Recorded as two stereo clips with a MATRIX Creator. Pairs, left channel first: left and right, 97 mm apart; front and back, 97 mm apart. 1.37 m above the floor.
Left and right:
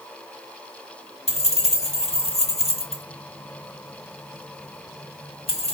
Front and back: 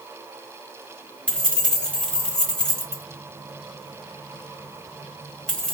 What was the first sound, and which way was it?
Keys jangling, 80° left.